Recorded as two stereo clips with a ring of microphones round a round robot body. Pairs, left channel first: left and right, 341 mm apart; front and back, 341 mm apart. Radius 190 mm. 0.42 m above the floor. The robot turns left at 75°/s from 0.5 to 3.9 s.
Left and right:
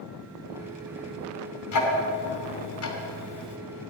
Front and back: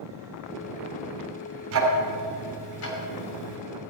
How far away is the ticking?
About 2.5 m.